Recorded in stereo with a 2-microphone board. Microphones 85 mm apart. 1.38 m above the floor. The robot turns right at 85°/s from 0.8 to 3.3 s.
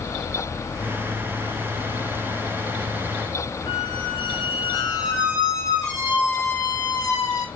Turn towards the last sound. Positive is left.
turn(degrees=50)  # may be behind; listen again after turning